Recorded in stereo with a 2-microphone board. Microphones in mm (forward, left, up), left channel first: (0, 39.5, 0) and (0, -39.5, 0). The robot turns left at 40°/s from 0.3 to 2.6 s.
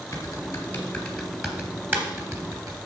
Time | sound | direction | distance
0.1 | typing on a keyboard | 40° left (ahead or behind) | 3 m